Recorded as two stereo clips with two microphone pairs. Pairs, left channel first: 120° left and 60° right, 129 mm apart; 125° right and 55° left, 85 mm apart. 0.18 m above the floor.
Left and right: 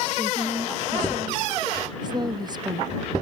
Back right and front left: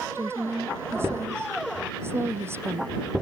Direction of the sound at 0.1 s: 5° right.